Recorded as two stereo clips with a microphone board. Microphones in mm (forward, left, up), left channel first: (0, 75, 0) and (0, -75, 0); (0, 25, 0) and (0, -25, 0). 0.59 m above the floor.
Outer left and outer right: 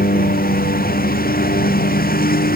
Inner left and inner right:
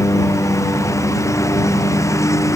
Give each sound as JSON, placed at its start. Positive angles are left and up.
{"t": 0.0, "sound": "a lawn mower", "side_deg": 80}